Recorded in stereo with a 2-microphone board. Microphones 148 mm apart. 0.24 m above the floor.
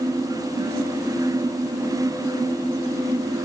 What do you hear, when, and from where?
Only background noise.